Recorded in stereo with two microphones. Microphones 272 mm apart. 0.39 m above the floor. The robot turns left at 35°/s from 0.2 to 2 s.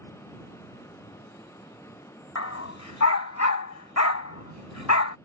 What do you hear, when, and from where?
2.4 s a dog barking: 70° left (ahead or behind)